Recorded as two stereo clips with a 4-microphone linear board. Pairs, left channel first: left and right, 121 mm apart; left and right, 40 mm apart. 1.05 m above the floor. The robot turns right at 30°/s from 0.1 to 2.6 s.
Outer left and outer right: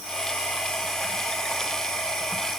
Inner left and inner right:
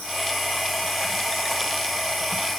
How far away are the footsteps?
No footsteps in this recording.